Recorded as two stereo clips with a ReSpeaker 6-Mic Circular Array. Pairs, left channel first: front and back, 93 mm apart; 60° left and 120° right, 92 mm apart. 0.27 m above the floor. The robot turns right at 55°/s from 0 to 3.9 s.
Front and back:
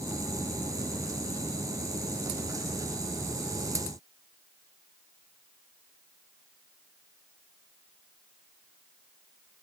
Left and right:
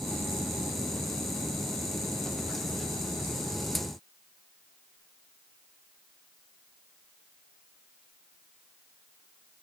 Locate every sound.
Only background noise.